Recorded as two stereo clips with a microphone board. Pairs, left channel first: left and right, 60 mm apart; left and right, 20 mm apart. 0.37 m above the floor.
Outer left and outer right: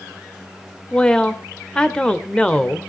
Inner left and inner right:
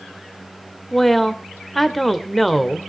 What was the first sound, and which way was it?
A woman speaking, 15° left (ahead or behind).